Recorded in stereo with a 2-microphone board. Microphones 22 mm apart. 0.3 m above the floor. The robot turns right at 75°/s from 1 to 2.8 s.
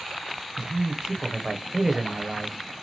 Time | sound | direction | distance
0.6 | a man speaking | 30° right (ahead or behind) | 0.9 m